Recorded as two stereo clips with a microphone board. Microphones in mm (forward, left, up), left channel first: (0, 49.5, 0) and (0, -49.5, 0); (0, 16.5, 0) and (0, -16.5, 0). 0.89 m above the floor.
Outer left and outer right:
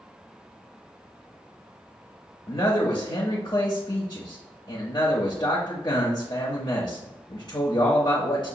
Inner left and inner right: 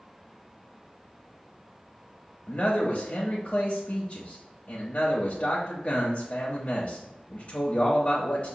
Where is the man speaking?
50° left (ahead or behind), 0.7 m.